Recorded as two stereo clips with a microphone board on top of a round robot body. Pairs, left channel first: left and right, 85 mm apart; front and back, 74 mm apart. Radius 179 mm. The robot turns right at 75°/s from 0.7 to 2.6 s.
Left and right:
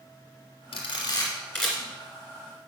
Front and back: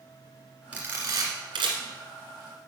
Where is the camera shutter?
110° left, 1.6 m; by 1.8 s 170° right, 1.6 m.